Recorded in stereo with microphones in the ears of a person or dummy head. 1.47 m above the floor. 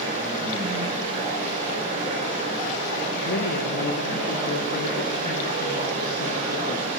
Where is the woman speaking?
55° left (ahead or behind), 1.3 m.